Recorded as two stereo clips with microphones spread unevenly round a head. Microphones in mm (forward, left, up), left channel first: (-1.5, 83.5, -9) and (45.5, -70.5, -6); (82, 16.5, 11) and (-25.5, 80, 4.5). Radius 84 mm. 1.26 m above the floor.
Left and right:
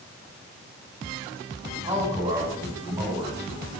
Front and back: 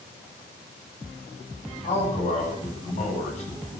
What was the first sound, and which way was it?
A man speaking, 5° right.